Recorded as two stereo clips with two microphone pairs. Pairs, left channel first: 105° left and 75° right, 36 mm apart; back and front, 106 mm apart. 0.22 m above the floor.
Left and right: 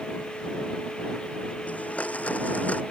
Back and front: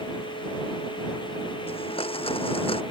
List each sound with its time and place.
1.7 s a blender: 155° left